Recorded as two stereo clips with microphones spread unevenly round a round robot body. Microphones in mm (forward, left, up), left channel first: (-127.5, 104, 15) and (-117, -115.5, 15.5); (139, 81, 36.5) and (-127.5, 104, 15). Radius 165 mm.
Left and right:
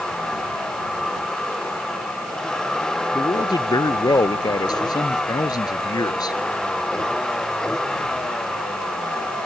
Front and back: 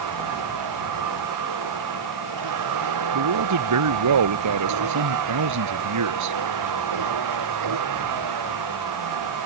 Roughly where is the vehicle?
Behind.